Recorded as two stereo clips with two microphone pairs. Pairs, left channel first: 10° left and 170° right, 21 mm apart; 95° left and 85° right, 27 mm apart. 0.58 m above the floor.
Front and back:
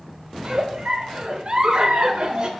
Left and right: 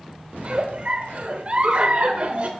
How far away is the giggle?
About 0.7 m.